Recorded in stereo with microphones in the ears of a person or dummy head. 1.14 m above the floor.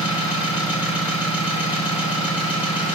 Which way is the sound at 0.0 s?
5° right (ahead or behind).